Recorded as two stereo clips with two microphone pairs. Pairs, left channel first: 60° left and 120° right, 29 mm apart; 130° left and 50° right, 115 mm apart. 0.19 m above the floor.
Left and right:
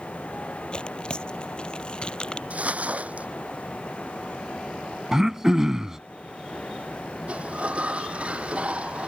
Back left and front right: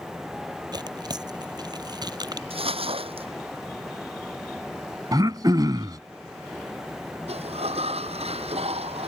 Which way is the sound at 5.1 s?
60° right.